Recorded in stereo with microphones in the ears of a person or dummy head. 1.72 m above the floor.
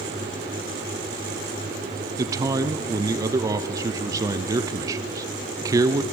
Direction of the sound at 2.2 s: 20° right (ahead or behind).